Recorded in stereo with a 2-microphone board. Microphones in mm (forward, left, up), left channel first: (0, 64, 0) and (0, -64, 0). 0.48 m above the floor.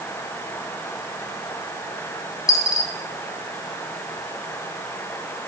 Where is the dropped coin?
25° left (ahead or behind), 1.7 m.